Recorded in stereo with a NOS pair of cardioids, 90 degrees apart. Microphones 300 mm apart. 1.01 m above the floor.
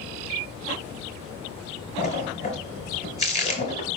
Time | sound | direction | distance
2.0 | a splash | 25° left | 4 m